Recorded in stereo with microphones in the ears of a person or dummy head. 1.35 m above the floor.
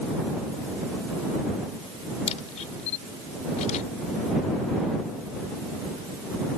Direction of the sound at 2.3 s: 45° left (ahead or behind).